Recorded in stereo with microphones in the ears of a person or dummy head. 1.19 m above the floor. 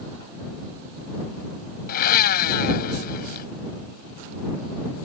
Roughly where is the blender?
Left.